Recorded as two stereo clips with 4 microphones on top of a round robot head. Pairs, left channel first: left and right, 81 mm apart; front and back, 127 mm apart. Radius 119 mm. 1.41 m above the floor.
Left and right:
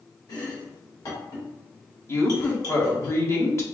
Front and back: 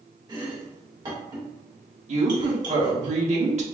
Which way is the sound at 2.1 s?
145° left.